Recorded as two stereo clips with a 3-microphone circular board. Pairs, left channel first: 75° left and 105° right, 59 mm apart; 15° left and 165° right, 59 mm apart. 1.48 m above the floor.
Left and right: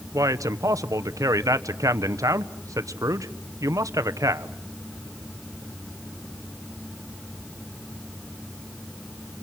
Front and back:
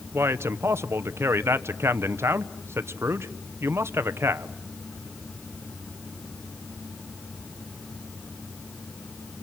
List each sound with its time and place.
0.1 s a man speaking: 125° right, 1.1 m